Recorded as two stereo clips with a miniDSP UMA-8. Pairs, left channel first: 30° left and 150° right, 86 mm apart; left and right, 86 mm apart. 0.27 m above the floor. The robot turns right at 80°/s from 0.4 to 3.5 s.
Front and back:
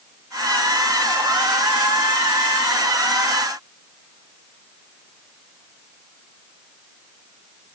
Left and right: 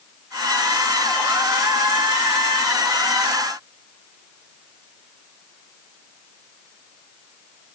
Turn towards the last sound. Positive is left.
No sound to turn to.